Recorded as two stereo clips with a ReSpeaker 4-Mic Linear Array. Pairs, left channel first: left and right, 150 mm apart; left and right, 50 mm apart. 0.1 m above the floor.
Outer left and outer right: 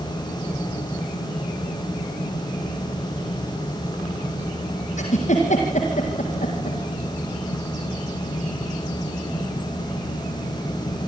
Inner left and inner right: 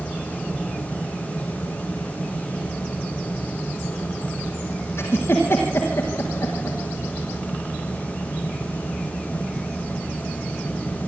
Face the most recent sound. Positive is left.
turn(degrees=60)  # may be behind; listen again after turning